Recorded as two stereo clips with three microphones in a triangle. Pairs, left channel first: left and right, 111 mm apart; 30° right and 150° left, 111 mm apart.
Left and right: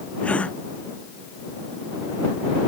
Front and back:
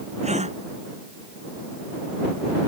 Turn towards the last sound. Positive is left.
turn(degrees=170)